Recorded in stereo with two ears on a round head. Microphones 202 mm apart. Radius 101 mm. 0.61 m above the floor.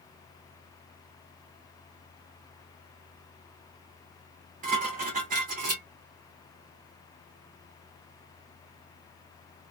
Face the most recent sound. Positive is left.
turn(degrees=-40)  # may be behind; listen again after turning